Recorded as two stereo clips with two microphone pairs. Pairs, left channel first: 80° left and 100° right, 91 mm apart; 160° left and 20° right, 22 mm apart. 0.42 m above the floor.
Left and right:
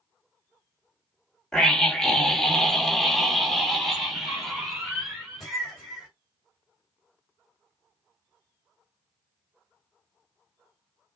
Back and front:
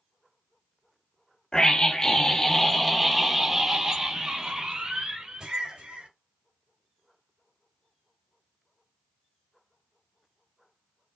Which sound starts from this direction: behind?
A scream, at 1.5 s.